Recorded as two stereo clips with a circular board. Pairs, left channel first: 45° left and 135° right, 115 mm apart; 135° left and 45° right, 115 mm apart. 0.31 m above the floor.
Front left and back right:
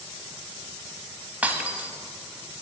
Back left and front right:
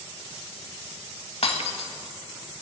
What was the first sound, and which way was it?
Breaking glass, 150° left.